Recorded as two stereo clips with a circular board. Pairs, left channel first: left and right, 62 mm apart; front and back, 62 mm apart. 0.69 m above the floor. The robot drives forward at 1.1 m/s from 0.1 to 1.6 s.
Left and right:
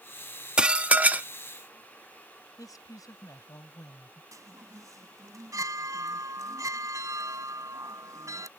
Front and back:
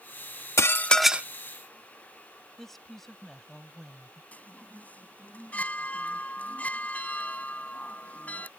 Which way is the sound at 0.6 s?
20° right.